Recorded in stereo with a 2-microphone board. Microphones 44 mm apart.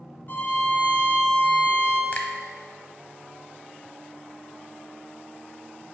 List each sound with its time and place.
0.3 s a violin: 45° left (ahead or behind), 1.5 m
2.1 s a finger snap: 35° left (ahead or behind), 0.9 m